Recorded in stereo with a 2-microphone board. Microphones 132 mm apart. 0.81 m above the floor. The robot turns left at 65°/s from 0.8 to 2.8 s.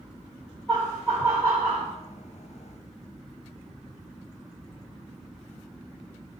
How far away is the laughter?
About 1.3 m.